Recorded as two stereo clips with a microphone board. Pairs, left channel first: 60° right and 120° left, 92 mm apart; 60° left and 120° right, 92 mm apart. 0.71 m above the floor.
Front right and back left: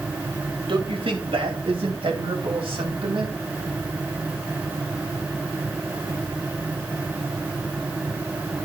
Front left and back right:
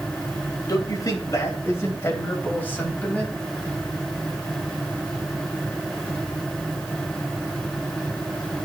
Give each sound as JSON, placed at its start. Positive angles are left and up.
{"t": 0.7, "sound": "a man speaking", "azimuth_deg": 105, "distance_m": 3.0}